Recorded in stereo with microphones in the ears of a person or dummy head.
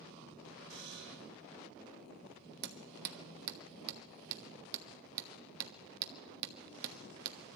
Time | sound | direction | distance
0.7 | a buzzer | 60° right (ahead or behind) | 4 m
2.6 | hammering | 60° right (ahead or behind) | 1.1 m